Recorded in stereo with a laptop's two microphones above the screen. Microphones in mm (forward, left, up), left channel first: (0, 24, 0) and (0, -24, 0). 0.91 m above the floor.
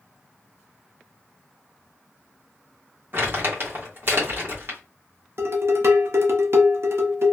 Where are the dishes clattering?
60° right (ahead or behind), 0.6 m.